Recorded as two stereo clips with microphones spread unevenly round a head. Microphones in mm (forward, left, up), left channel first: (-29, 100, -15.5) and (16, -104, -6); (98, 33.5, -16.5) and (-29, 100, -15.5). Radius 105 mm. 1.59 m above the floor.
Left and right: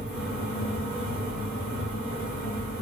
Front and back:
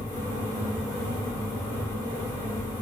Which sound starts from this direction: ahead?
A fan, at 0.0 s.